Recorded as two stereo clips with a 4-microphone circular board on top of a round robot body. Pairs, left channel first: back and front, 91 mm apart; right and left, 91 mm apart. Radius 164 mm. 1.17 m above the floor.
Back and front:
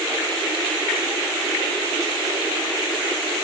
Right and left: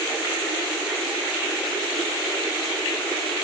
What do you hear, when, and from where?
Only background noise.